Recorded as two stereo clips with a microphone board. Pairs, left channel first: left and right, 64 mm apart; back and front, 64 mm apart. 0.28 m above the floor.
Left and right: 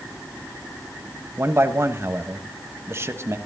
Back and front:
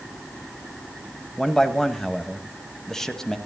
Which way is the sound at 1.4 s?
105° right.